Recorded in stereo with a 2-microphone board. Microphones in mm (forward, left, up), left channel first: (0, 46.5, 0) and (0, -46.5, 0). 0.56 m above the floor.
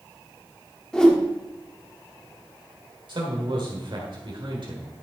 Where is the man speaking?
60° right (ahead or behind), 1.9 m.